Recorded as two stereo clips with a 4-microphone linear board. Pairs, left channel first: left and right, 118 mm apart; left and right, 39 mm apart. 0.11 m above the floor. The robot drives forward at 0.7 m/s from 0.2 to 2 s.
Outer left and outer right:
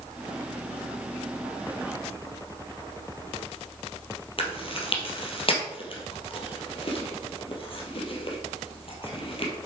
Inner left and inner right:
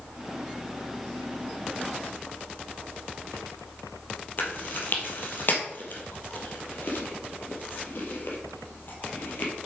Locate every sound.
4.4 s chewing: 50° left (ahead or behind), 2.5 m